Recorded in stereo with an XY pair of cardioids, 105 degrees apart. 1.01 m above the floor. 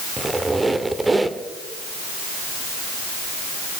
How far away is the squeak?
About 1.6 m.